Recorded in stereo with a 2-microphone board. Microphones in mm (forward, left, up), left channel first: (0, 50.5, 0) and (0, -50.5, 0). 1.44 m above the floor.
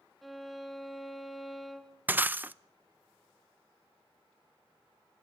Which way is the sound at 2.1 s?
20° right (ahead or behind).